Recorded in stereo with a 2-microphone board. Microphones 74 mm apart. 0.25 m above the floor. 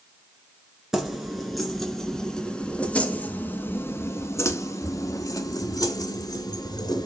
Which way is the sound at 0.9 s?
5° right (ahead or behind).